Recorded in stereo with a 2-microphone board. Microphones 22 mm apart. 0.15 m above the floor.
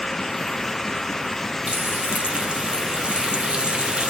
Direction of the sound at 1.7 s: 55° right (ahead or behind).